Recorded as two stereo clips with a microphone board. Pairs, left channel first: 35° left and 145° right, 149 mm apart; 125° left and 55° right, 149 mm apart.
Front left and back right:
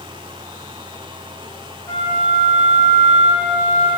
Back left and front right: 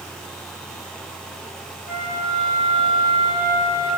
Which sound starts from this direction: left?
A flute, at 1.9 s.